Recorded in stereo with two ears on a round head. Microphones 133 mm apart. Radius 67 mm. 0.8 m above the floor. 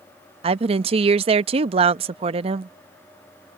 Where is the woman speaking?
40° right (ahead or behind).